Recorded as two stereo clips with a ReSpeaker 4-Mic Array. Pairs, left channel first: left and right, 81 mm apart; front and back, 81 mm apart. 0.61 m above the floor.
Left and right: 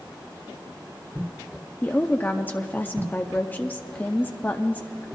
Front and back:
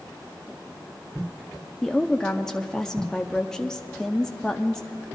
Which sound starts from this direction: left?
A woman speaking, at 1.8 s.